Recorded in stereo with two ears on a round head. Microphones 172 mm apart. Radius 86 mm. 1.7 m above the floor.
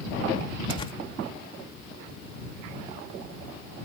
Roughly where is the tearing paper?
Left.